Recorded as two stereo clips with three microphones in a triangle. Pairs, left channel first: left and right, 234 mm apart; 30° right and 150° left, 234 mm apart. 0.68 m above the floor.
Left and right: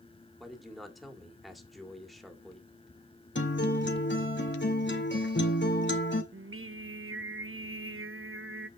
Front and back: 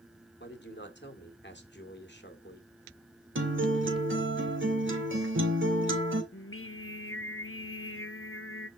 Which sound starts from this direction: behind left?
A guitar, at 3.4 s.